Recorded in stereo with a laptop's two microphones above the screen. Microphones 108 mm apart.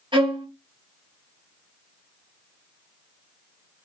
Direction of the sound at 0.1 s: 50° right (ahead or behind).